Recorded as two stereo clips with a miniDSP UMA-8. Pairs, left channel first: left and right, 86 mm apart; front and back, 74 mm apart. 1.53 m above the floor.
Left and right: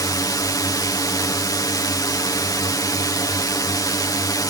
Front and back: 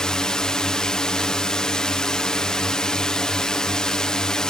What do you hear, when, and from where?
0.0 s a drone: 75° left